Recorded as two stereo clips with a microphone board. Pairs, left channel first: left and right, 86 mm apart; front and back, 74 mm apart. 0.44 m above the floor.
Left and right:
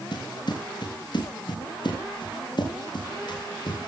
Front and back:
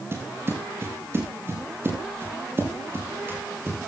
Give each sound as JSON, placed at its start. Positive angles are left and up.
{"t": 0.1, "sound": "footsteps", "azimuth_deg": 125, "distance_m": 5.5}